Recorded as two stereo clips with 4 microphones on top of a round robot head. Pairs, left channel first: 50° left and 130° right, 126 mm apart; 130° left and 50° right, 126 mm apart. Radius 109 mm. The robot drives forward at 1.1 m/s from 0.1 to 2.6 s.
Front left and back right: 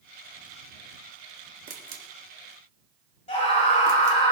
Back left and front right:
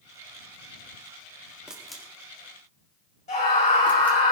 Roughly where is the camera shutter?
Behind right.